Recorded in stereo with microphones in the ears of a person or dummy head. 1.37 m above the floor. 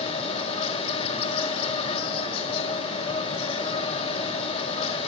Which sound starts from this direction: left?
An insect, at 0.0 s.